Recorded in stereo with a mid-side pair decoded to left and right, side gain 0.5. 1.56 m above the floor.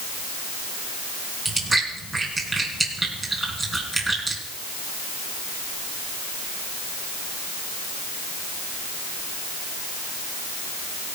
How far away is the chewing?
About 4.5 m.